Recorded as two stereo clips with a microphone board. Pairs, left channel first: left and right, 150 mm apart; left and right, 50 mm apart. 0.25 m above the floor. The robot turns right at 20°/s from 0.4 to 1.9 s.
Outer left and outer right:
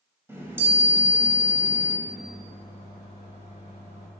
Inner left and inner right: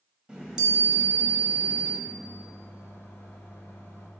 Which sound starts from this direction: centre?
A chime, at 0.3 s.